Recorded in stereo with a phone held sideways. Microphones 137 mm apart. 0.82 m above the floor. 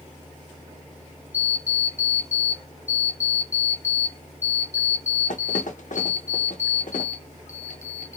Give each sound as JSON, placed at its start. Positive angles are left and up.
{"t": 1.3, "sound": "an alarm clock", "side_deg": 65, "distance_m": 0.7}